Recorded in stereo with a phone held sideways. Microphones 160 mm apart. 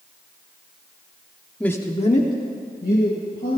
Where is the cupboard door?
No cupboard door in this recording.